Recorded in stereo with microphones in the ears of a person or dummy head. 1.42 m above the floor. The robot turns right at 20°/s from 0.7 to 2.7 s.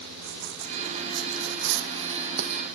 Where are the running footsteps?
65° right (ahead or behind); by 2.7 s 40° right (ahead or behind).